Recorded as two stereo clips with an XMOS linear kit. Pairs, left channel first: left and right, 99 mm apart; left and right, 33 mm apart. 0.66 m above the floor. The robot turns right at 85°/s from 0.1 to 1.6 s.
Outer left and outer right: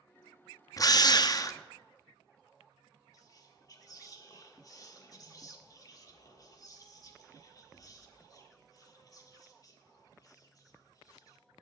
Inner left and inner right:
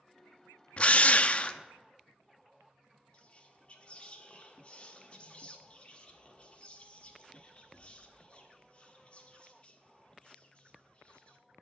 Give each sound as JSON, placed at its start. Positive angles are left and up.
{"t": 0.8, "sound": "a drill", "azimuth_deg": 60, "distance_m": 0.5}
{"t": 3.1, "sound": "whispering", "side_deg": 40, "distance_m": 1.5}